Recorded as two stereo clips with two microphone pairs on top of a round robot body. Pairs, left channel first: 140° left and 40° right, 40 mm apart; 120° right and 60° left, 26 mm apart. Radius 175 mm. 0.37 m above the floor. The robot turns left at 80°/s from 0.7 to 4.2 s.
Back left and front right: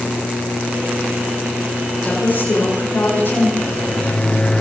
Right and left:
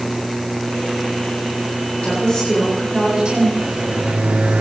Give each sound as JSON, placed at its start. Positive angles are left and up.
{"t": 2.0, "sound": "a woman speaking", "azimuth_deg": -155, "distance_m": 8.0}
{"t": 3.6, "sound": "a microwave", "azimuth_deg": 125, "distance_m": 2.0}